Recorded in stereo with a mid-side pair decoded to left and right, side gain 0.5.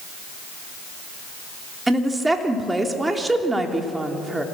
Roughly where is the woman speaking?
Ahead.